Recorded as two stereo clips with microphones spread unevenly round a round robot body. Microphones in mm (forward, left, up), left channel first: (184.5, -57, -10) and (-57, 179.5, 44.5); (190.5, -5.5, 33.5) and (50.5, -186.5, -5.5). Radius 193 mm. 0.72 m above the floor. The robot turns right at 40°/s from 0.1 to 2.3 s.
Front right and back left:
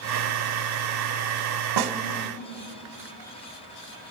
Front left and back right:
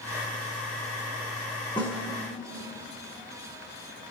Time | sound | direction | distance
1.8 | a snare drum | 125° left | 1.5 m